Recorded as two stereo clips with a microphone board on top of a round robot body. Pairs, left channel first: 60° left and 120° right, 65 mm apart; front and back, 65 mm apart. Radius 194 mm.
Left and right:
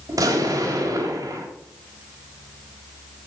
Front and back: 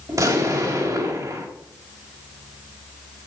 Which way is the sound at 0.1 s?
150° right.